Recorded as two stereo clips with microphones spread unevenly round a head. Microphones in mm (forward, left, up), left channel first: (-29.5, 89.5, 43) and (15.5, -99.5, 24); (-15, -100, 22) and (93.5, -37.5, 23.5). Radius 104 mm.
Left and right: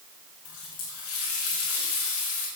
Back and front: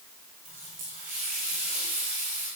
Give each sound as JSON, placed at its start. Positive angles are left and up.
{"t": 0.5, "sound": "a running tap", "azimuth_deg": 85, "distance_m": 5.0}